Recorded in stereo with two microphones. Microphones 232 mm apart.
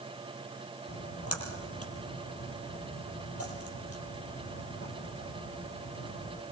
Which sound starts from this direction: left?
A splash, at 0.9 s.